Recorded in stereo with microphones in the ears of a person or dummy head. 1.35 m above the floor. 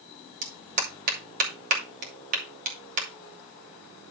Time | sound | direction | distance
0.4 | a clap | 45° right (ahead or behind) | 3 m